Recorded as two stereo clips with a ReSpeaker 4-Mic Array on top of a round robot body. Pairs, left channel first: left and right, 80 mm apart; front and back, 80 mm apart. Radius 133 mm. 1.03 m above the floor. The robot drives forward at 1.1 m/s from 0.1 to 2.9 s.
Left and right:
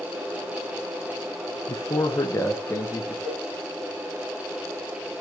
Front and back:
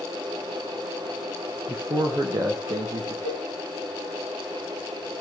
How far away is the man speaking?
About 1.2 m.